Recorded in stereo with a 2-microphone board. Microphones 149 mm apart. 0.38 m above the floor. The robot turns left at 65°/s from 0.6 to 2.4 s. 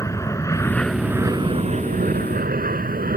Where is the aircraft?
20° left (ahead or behind); by 3.2 s 75° right (ahead or behind).